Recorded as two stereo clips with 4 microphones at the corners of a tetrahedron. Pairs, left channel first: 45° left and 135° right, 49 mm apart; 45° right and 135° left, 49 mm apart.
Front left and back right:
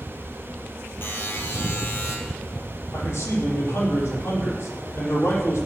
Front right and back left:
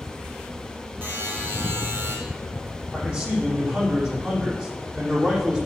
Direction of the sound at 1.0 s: 90° left.